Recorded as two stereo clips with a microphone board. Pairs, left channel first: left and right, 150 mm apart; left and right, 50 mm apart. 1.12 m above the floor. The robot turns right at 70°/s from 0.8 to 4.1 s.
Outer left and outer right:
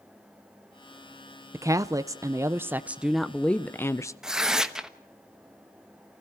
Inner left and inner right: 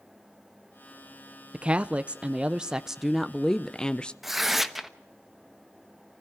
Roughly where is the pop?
No pop in this recording.